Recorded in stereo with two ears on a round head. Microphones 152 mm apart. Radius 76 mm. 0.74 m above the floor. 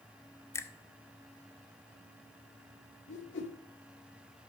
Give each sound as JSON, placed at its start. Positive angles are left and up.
{"t": 0.5, "sound": "a finger snap", "side_deg": 15, "distance_m": 0.6}
{"t": 3.1, "sound": "a whoosh", "side_deg": 75, "distance_m": 1.7}